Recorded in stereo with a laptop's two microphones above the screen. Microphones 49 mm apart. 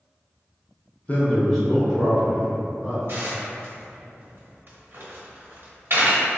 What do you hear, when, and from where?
1.1 s a man speaking: 35° left (ahead or behind), 0.6 m; by 3.0 s 15° right (ahead or behind), 2.5 m
3.1 s dishes clattering: 55° right (ahead or behind), 0.8 m